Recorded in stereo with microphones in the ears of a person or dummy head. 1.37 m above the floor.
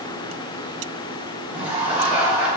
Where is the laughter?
Centre (ahead or behind), 3.5 m.